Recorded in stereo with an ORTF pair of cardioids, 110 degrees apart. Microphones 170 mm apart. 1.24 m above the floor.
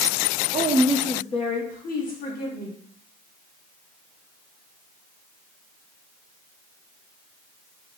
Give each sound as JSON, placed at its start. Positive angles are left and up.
{"t": 0.5, "sound": "a woman speaking", "azimuth_deg": -45, "distance_m": 0.6}